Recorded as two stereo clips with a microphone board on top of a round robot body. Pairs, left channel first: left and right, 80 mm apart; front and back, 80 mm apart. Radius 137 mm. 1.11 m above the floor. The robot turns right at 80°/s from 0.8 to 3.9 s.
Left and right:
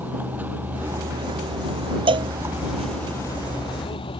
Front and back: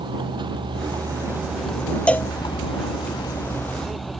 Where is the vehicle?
160° right; by 4.2 s 90° left.